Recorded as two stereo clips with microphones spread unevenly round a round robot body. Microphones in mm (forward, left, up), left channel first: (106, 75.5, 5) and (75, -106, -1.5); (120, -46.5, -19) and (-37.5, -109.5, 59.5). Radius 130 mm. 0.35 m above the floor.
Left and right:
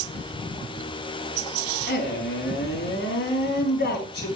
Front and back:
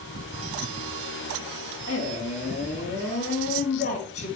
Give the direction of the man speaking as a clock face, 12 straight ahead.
10 o'clock.